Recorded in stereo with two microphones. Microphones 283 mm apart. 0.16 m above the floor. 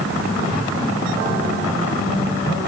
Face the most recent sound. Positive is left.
No sound to turn to.